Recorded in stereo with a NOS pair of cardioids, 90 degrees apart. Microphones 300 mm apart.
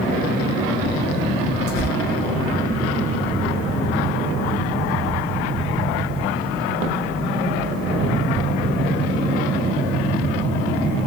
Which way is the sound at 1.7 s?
70° right.